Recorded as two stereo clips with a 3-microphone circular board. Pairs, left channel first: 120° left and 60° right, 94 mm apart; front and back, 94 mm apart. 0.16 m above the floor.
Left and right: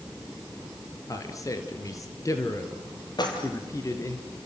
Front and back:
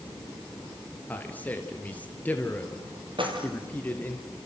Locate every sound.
1.1 s a man speaking: 70° left, 2.5 m
3.2 s keys jangling: 160° left, 3.5 m